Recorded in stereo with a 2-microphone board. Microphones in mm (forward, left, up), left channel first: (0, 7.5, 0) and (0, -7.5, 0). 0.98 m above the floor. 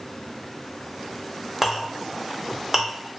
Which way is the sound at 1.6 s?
20° right (ahead or behind).